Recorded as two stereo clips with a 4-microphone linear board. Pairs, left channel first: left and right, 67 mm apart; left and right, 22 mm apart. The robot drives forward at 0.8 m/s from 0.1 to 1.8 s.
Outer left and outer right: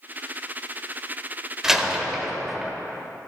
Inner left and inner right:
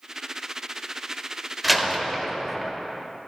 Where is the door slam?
5° right (ahead or behind), 1.2 m.